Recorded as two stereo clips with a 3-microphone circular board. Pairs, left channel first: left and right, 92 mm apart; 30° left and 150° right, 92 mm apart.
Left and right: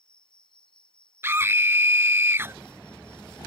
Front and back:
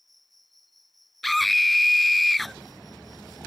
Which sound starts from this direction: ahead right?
A scream, at 1.2 s.